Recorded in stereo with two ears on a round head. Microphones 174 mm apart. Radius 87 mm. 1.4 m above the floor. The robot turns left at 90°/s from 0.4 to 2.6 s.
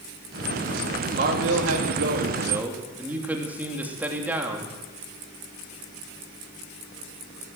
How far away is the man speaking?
About 3 m.